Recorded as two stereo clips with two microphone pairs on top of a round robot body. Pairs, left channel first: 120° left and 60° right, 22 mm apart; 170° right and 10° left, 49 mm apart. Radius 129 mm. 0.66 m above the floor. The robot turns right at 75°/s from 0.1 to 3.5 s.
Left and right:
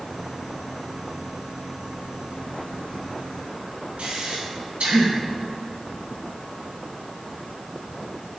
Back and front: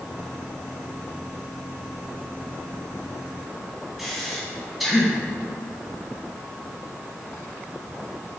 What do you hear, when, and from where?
4.0 s breathing: 80° right, 1.4 m